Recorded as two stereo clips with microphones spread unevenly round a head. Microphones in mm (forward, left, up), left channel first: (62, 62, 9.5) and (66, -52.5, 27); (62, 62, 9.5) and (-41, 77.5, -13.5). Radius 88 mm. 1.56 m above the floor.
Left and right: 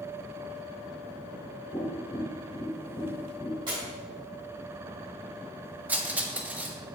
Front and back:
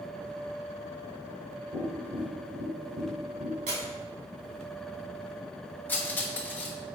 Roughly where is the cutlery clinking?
Ahead right.